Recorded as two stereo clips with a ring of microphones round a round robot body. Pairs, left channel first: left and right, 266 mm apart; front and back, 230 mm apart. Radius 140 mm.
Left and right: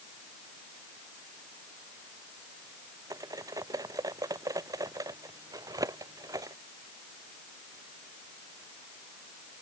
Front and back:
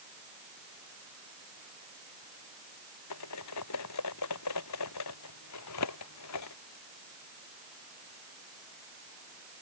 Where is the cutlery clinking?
10° right.